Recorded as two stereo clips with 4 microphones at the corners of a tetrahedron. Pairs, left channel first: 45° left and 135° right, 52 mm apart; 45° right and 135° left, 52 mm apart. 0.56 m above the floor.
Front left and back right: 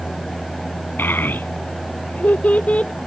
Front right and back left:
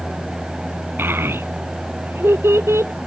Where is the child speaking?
90° left; by 2.9 s 110° left.